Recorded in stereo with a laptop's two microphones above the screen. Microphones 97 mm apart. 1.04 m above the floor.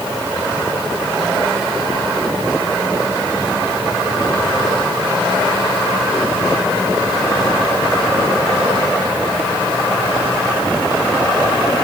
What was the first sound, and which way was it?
Only background noise.